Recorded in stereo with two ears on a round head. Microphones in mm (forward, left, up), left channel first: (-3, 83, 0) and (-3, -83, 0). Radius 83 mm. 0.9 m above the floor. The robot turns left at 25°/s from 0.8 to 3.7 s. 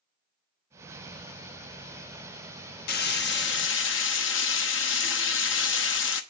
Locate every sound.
2.9 s frying: 55° left (ahead or behind), 1.0 m; by 6.2 s 75° left (ahead or behind), 1.0 m